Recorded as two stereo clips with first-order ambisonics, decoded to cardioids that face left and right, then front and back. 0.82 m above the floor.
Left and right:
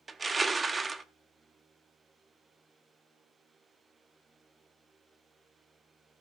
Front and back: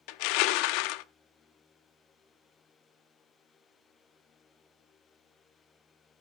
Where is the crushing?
10° right, 0.7 m.